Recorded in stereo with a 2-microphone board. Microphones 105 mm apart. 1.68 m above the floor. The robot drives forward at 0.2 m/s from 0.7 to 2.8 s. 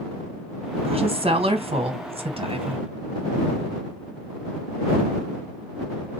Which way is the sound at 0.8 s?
70° right (ahead or behind).